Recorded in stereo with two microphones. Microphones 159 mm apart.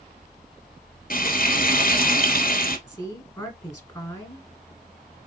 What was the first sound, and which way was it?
Frying, 65° left (ahead or behind).